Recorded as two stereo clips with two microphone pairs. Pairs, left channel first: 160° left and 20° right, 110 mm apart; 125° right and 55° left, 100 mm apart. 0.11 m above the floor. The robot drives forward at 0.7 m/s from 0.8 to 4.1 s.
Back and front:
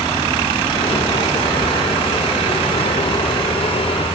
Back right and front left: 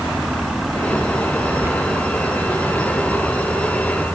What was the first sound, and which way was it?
Tearing paper, 15° right.